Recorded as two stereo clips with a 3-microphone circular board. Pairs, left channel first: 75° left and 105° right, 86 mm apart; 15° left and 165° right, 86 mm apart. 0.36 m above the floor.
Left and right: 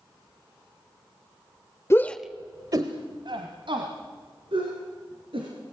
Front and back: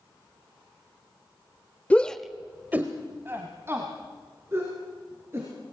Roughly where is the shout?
Left.